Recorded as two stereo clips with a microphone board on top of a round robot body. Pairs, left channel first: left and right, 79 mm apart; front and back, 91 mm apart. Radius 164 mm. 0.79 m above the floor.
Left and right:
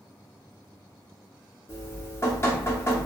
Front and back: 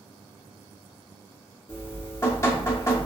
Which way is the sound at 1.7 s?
50° left.